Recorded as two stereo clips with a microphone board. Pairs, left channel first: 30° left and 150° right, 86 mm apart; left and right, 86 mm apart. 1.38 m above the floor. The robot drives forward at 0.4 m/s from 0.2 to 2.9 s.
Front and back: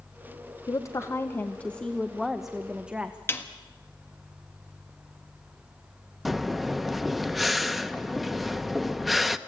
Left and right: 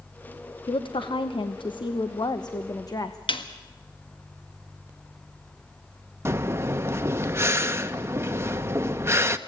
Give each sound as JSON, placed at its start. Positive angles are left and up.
{"t": 0.7, "sound": "a woman speaking", "azimuth_deg": 75, "distance_m": 0.8}
{"t": 3.3, "sound": "a snare drum", "azimuth_deg": 95, "distance_m": 1.5}
{"t": 6.2, "sound": "breathing", "azimuth_deg": -60, "distance_m": 0.7}